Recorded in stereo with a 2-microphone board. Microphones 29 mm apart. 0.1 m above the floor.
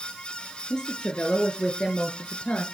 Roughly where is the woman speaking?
Left.